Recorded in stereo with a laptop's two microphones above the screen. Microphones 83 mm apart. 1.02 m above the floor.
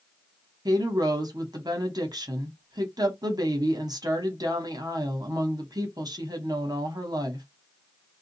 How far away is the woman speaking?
About 1.1 m.